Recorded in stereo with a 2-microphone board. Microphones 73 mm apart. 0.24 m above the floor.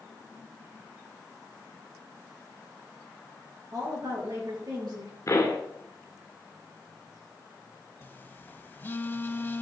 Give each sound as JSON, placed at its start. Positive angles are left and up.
{"t": 3.7, "sound": "a woman speaking", "side_deg": -60, "distance_m": 4.5}
{"t": 5.3, "sound": "a pop", "side_deg": 45, "distance_m": 1.9}
{"t": 8.0, "sound": "a phone buzzing", "side_deg": 30, "distance_m": 0.6}